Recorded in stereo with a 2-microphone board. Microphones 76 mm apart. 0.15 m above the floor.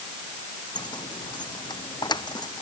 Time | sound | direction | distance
0.8 | keys jangling | 80° left | ?